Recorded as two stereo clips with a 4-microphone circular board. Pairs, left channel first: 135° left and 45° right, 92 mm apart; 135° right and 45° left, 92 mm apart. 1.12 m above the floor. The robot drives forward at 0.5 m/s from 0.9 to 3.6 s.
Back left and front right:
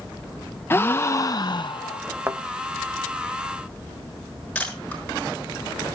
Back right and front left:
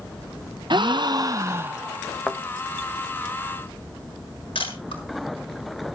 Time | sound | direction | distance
0.7 | a gasp | 70° left | 0.6 m
2.3 | a thud | 65° right | 1.0 m
4.5 | a camera shutter | 145° right | 7 m